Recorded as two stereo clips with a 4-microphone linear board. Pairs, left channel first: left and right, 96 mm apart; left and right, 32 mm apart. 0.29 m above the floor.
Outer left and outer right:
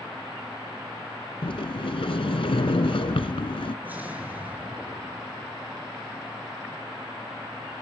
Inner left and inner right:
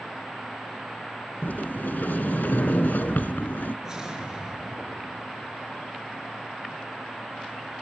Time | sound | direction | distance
1.4 | a sliding door | 75° left (ahead or behind) | 1.0 m
3.9 | an explosion | 20° right (ahead or behind) | 5 m